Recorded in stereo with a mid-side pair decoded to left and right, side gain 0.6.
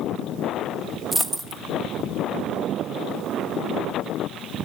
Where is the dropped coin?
20° right, 1.5 m.